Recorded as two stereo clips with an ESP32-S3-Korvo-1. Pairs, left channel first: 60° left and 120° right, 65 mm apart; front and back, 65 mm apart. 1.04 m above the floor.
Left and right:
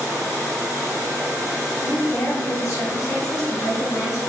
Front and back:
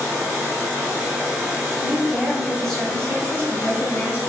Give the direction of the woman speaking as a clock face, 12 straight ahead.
8 o'clock.